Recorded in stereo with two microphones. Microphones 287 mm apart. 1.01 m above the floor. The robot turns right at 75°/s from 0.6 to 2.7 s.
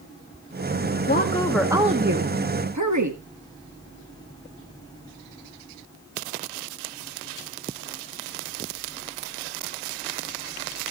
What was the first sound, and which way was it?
A woman speaking, 140° left.